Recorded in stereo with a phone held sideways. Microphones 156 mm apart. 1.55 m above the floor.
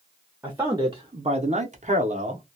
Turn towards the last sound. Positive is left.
turn(degrees=-45)  # may be behind; listen again after turning